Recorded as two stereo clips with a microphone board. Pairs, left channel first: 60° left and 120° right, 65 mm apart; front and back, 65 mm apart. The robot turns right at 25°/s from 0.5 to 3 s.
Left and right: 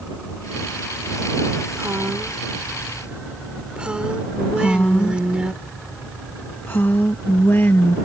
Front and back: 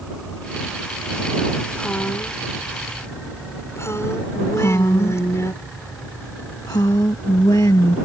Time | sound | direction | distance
1.8 | a woman speaking | 75° right | ?
4.5 | a woman speaking | 10° left | ?